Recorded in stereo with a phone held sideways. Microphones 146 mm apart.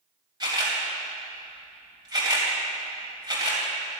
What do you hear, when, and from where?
0.4 s a camera shutter: 30° right (ahead or behind), 3 m